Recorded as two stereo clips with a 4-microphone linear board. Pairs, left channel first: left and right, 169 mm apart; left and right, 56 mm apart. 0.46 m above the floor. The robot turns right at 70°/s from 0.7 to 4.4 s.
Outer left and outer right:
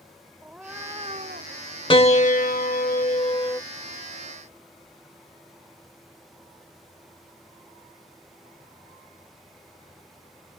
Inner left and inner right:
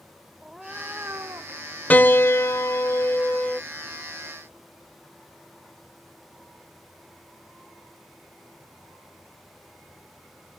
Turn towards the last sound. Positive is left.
turn(degrees=-150)